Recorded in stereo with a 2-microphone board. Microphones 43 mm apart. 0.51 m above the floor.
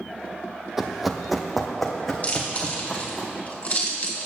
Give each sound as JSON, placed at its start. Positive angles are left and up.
{"t": 0.8, "sound": "running footsteps", "side_deg": -10, "distance_m": 0.7}
{"t": 2.2, "sound": "chewing", "side_deg": 35, "distance_m": 2.0}